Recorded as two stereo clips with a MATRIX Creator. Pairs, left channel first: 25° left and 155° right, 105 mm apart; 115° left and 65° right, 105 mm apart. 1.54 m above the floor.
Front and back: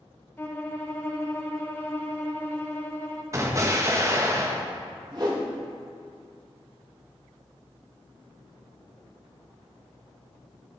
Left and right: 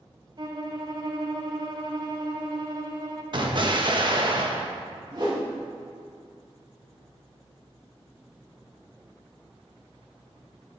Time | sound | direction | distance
0.4 | a violin | 40° right | 1.1 m
3.3 | an explosion | 100° right | 1.2 m
5.1 | a whoosh | 115° right | 2.5 m